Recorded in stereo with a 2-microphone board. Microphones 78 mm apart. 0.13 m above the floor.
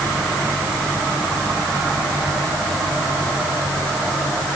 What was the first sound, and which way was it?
Only background noise.